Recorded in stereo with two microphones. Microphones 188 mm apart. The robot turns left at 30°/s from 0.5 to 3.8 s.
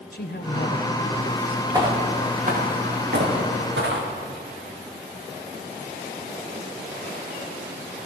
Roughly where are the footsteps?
Centre.